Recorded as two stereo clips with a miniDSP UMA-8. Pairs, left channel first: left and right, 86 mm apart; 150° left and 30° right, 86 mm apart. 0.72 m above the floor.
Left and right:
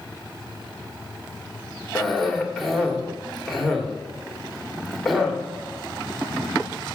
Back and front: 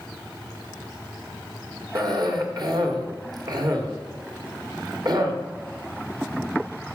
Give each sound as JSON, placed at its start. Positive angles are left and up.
{"t": 1.9, "sound": "a cough", "azimuth_deg": 5, "distance_m": 1.8}